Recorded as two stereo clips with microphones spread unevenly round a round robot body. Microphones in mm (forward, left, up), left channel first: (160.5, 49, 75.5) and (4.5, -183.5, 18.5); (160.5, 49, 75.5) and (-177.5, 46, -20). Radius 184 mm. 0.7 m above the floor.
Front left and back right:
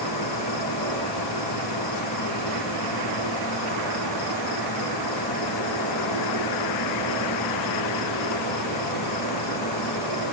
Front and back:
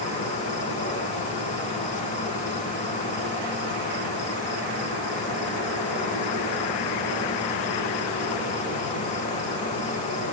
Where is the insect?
70° left, 5 m.